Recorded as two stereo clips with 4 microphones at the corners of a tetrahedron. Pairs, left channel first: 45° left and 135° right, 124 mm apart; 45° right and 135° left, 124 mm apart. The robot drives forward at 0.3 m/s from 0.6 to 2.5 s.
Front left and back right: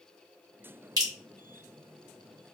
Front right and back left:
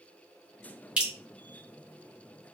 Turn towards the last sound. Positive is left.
turn(degrees=-160)